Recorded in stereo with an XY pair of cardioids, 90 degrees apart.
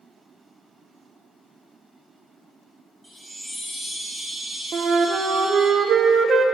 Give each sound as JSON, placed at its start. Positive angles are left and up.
{"t": 3.0, "sound": "a chime", "azimuth_deg": -25, "distance_m": 2.5}
{"t": 4.7, "sound": "a flute", "azimuth_deg": -60, "distance_m": 0.6}